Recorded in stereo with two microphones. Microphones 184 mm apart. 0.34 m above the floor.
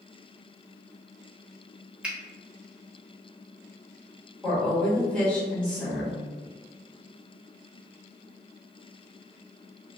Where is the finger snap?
5° right (ahead or behind), 0.6 m.